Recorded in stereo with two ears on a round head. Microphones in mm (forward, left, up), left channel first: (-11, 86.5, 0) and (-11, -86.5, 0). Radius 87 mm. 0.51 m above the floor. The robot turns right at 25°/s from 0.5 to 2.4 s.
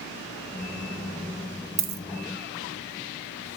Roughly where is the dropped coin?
Right.